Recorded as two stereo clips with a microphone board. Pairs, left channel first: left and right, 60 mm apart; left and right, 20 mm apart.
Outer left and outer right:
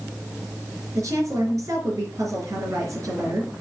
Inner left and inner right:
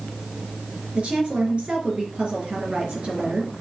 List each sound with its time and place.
0.9 s a woman speaking: 65° right (ahead or behind), 3.5 m